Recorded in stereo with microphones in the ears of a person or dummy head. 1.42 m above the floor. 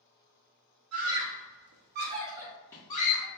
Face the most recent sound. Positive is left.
turn(degrees=35)  # may be behind; listen again after turning